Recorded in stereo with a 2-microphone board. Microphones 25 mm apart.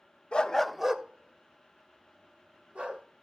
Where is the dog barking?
45° left (ahead or behind), 0.6 m; by 3.0 s 70° right (ahead or behind), 3 m.